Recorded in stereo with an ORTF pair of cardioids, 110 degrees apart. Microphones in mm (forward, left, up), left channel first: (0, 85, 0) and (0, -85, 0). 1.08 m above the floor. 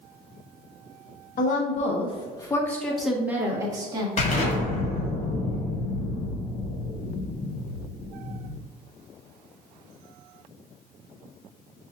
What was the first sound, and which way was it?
A woman speaking, 55° left.